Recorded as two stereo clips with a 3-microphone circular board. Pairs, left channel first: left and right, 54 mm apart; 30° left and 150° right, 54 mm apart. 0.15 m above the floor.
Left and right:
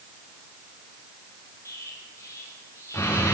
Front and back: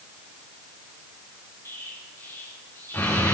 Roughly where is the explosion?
Ahead left.